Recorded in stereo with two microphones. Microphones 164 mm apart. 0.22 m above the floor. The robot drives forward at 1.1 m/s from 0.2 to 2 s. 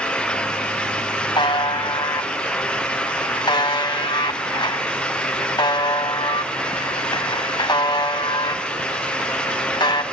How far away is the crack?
I don't hear a crack.